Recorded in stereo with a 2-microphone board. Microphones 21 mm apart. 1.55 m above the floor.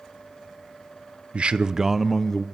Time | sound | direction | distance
1.3 | a man speaking | 60° right (ahead or behind) | 0.9 m